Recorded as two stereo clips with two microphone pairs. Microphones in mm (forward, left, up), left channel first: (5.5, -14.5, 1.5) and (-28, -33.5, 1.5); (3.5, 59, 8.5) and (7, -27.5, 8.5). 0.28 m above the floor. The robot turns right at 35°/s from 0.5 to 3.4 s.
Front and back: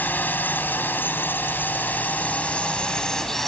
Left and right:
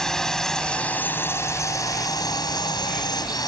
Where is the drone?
10° left; by 3.5 s 110° left.